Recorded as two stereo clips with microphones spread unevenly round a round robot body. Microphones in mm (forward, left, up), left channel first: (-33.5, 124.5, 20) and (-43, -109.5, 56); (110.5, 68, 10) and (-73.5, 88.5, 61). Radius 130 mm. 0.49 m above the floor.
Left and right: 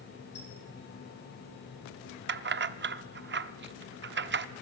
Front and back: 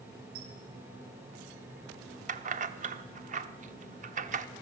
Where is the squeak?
130° left, 5.5 m.